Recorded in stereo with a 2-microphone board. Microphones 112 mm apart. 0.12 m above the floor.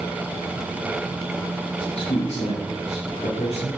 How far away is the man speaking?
About 4 m.